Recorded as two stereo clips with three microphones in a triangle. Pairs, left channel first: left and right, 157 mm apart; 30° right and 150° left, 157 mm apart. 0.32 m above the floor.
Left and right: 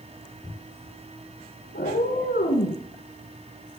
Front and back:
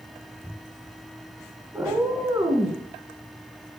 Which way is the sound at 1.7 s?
75° left.